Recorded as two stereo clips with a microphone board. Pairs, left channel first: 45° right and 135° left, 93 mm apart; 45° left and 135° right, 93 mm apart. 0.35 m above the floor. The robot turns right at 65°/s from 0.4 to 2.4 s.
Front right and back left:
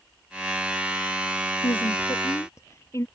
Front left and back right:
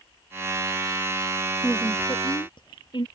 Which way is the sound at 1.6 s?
35° right.